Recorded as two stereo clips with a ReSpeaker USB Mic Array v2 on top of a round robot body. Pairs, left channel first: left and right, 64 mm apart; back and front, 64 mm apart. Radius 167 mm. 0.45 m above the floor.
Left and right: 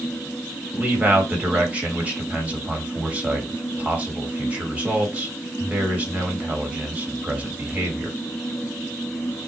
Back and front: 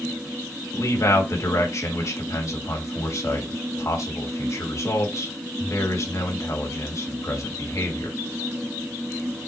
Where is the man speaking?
155° right, 2 m.